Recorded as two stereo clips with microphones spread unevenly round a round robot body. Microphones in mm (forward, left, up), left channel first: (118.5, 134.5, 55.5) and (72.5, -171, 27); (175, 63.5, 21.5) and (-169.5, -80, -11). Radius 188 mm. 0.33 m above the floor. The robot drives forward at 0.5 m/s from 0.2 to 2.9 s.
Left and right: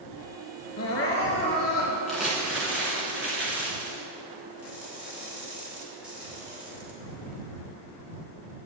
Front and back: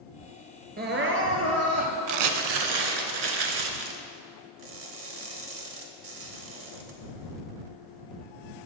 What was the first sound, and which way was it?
Crying, 135° left.